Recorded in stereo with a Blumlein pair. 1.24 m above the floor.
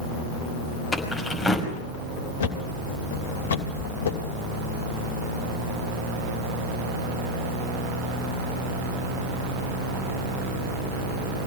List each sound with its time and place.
0.9 s keys jangling: straight ahead, 5.5 m
2.4 s a thud: 60° left, 2.5 m